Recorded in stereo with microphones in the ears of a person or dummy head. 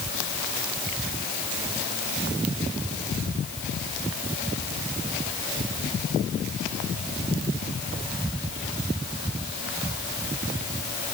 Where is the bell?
I don't hear a bell.